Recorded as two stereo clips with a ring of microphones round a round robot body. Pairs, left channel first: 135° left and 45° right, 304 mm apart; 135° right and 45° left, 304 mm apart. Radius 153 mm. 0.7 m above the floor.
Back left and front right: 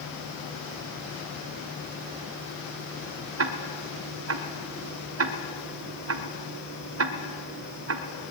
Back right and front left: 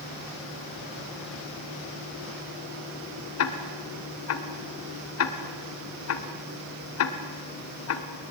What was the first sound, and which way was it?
Ticking, 90° right.